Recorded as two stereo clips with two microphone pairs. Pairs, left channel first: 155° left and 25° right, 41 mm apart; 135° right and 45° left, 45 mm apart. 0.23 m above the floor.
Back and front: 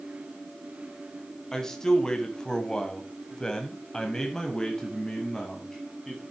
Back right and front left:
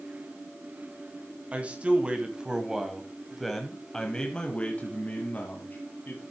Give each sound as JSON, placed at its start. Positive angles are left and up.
{"t": 1.5, "sound": "a man speaking", "azimuth_deg": 85, "distance_m": 1.9}